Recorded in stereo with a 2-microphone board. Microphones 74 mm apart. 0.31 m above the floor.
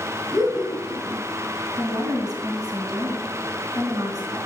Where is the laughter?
Centre (ahead or behind), 3 m.